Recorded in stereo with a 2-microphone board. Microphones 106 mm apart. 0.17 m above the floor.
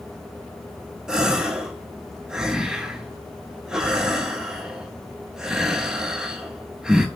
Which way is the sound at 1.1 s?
5° right (ahead or behind).